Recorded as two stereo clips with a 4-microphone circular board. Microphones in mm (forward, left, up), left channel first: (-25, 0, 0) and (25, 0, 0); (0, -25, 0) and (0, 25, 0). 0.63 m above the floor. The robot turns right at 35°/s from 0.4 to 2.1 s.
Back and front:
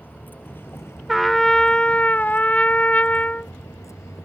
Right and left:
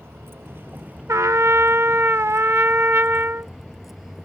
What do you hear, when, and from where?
0.0 s a vehicle: 130° left; by 4.2 s 175° left
1.1 s a trumpet: 90° left; by 3.5 s 125° left